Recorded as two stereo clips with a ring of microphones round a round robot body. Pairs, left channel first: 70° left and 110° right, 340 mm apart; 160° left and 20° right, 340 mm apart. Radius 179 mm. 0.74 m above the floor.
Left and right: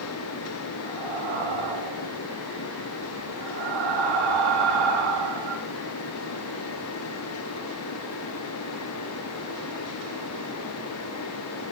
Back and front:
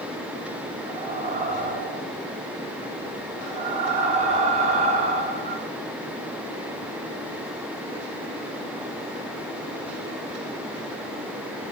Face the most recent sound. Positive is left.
turn(degrees=-95)